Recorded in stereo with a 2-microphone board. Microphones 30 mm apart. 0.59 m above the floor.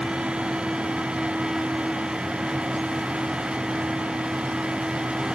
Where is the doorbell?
No doorbell in this recording.